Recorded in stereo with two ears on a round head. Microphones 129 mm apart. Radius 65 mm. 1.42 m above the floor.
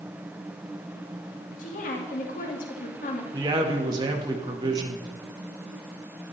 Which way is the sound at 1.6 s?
65° left (ahead or behind).